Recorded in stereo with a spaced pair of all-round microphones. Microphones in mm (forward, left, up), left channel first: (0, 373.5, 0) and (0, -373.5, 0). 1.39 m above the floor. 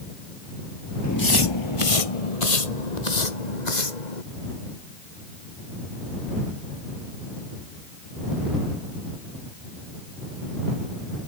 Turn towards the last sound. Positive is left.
turn(degrees=70)  # may be behind; listen again after turning